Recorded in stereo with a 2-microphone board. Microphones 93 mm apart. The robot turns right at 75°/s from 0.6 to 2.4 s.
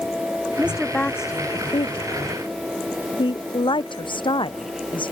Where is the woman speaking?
15° right (ahead or behind); by 5.1 s 60° left (ahead or behind).